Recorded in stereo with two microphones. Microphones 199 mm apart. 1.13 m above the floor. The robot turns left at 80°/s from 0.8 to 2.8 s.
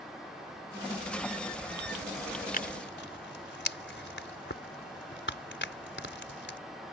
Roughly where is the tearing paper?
Left.